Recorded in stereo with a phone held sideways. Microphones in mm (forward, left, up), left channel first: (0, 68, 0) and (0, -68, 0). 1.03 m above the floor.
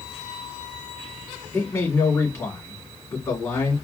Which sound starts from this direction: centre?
A man speaking, at 1.5 s.